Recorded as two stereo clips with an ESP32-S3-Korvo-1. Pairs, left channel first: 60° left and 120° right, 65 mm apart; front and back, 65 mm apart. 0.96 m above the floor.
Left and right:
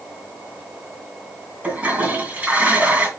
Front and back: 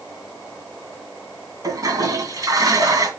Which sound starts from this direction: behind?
A toilet flushing, at 1.6 s.